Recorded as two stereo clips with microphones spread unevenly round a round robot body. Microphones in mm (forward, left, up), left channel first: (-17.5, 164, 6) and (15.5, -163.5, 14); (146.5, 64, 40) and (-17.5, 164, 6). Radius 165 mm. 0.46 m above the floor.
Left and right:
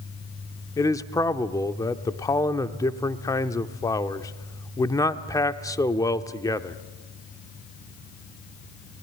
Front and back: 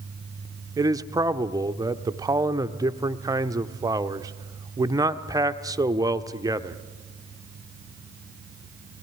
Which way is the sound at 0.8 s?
160° left.